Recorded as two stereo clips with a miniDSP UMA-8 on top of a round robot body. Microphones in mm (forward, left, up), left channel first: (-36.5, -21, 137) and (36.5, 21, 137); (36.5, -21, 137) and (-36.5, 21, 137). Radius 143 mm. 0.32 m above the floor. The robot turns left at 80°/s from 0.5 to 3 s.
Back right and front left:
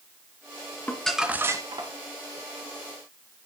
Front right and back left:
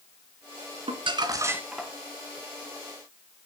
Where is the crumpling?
140° left, 1.7 m; by 1.9 s 55° left, 1.7 m.